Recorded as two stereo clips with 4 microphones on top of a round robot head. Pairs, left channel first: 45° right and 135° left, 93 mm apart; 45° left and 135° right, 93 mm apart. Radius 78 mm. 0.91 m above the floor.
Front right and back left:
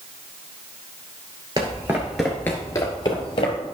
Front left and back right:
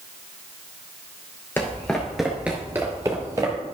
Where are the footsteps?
100° left, 0.9 m; by 3.6 s 80° right, 1.3 m.